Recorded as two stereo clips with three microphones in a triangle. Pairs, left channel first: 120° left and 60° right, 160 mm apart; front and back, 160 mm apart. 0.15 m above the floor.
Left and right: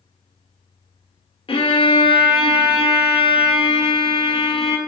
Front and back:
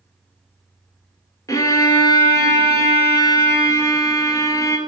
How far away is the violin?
About 1.0 m.